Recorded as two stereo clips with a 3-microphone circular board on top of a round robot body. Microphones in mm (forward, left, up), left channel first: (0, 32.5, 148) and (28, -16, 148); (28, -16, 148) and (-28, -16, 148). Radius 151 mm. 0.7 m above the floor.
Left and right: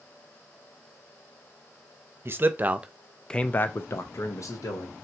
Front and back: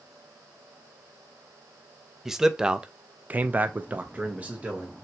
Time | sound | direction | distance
2.2 | a man speaking | 100° right | 0.9 m